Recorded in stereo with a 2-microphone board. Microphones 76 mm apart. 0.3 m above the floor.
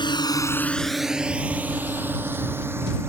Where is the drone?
70° left (ahead or behind); by 3.1 s 30° right (ahead or behind).